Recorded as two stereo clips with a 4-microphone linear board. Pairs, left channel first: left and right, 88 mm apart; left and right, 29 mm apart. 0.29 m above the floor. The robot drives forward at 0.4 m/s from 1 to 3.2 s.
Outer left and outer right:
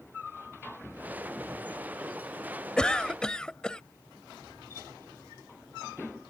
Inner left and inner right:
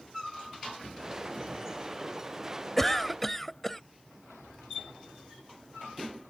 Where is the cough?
10° left (ahead or behind).